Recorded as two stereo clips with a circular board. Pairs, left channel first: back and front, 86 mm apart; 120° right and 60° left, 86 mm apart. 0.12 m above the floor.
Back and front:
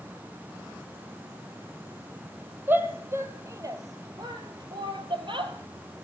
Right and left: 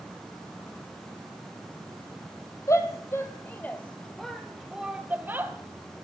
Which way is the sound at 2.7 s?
70° right.